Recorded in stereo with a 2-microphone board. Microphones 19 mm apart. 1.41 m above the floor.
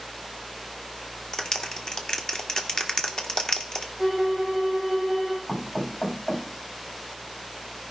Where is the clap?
35° left (ahead or behind), 1.7 m.